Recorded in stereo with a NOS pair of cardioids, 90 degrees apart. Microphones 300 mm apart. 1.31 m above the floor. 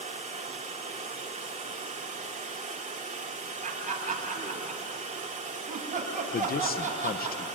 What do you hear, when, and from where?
0.0 s running water: 25° right, 3 m
3.6 s laughter: 25° right, 8.5 m
6.3 s a man speaking: 30° left, 1.3 m